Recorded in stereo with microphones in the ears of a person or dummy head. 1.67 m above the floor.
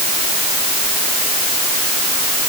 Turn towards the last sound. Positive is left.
No sound to turn to.